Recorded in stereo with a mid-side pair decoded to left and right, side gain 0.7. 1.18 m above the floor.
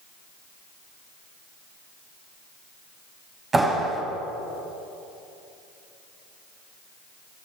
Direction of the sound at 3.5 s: 20° right.